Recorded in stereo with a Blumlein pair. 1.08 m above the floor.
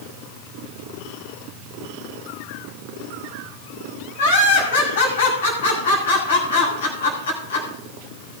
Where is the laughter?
60° left, 7.5 m.